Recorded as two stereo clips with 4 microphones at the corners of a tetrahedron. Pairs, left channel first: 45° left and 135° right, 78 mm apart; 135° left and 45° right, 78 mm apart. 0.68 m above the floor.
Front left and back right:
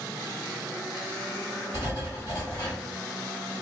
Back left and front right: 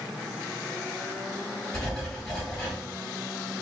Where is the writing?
55° left, 1.9 m.